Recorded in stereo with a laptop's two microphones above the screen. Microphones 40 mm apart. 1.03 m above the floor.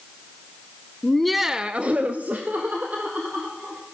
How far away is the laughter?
About 0.8 m.